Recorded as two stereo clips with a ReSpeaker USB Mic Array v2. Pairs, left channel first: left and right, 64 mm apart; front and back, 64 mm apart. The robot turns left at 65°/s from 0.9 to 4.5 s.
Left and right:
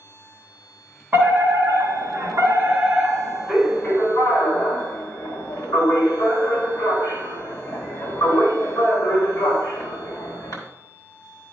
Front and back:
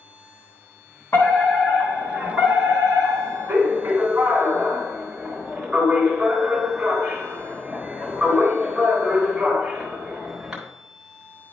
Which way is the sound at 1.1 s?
40° right.